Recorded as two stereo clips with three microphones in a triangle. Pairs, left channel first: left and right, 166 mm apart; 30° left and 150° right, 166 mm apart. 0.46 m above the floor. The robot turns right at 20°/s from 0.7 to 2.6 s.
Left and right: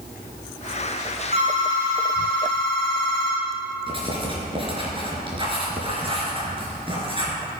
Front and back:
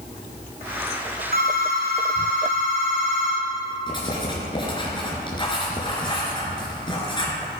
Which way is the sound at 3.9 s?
30° right.